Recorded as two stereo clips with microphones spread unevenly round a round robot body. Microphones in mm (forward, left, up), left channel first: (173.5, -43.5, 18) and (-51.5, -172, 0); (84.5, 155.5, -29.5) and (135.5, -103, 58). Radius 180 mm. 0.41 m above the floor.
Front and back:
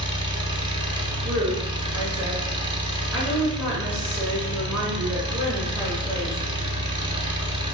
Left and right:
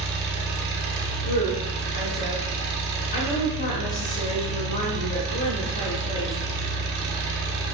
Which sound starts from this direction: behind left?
A woman speaking, at 1.2 s.